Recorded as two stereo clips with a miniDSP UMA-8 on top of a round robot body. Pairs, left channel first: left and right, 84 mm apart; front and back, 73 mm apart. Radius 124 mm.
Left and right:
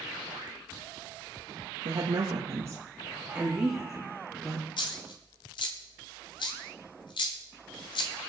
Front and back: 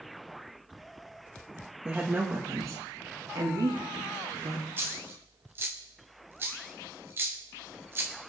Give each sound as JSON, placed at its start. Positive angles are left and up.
{"t": 1.9, "sound": "a woman speaking", "azimuth_deg": -105, "distance_m": 1.5}
{"t": 4.8, "sound": "a dropped coin", "azimuth_deg": 115, "distance_m": 0.5}